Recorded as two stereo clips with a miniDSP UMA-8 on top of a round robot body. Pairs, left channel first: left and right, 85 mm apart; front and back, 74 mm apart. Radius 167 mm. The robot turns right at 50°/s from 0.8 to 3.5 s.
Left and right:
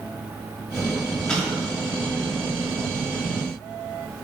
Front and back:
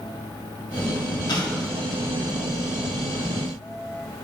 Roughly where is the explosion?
Ahead.